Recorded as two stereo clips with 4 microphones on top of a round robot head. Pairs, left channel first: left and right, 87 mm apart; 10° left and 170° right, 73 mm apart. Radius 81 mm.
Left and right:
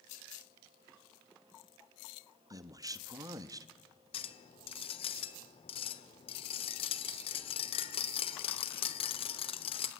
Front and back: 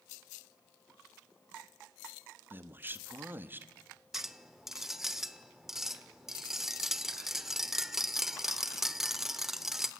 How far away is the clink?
About 1.3 m.